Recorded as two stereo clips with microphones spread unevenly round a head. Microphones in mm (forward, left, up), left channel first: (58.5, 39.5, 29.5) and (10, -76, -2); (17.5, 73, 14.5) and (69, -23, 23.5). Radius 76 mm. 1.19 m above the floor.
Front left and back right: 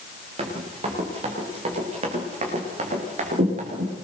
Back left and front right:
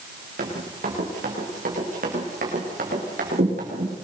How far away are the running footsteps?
About 8.5 m.